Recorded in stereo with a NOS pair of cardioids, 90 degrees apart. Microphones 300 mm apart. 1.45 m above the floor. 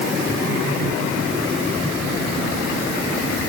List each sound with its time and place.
Only background noise.